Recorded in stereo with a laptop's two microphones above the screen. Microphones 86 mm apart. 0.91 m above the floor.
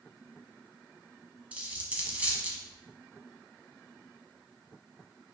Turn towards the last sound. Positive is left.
turn(degrees=-15)  # may be behind; listen again after turning